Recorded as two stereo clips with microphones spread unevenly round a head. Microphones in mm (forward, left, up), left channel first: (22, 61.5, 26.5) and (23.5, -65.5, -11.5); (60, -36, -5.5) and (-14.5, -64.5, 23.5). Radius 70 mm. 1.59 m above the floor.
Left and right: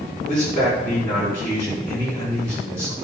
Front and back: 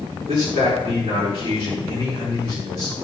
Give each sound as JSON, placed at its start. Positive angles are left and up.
{"t": 0.3, "sound": "a man speaking", "azimuth_deg": 165, "distance_m": 5.0}